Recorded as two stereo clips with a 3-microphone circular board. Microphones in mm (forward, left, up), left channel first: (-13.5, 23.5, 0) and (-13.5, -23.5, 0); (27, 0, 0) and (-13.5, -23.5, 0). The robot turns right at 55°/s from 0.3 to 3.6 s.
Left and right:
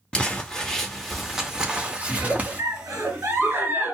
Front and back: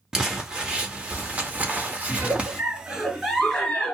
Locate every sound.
0.1 s crumpling: 140° left, 0.7 m; by 2.6 s 95° right, 0.7 m
2.1 s a giggle: 130° right, 1.7 m; by 4.0 s 45° right, 1.7 m